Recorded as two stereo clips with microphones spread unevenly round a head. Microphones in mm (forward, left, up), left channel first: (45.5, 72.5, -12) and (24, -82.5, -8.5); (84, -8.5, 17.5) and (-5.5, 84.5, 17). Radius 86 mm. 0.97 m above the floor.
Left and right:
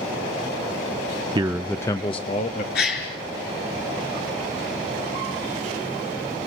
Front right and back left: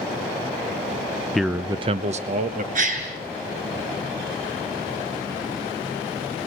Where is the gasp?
120° left, 4.5 m.